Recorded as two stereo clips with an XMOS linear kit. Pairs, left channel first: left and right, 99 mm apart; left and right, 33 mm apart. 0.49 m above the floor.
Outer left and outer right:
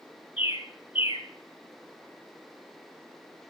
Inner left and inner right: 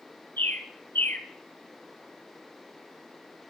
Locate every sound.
0.4 s a bird: 70° left (ahead or behind), 1.9 m